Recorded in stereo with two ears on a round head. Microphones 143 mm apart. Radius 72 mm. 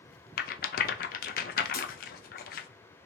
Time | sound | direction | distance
0.4 | a rattle | 60° left (ahead or behind) | 0.6 m
1.7 | breaking glass | 65° left (ahead or behind) | 1.9 m